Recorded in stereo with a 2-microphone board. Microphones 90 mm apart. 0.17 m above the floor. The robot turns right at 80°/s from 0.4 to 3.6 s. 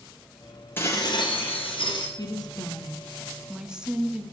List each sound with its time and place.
0.8 s dishes clattering: 25° left, 3 m; by 2.1 s 130° left, 3 m
2.2 s a woman speaking: 75° left, 2.0 m; by 4.2 s 170° right, 2.0 m